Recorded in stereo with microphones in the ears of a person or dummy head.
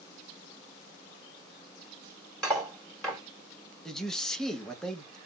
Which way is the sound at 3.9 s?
5° left (ahead or behind).